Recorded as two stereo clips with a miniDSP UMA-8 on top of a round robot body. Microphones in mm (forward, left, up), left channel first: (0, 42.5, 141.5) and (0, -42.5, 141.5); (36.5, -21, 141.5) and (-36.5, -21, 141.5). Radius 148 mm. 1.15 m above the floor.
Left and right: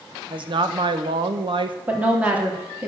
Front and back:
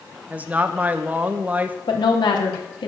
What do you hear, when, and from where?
0.3 s a woman speaking: 110° right, 1.5 m
1.9 s a woman speaking: 15° right, 3.5 m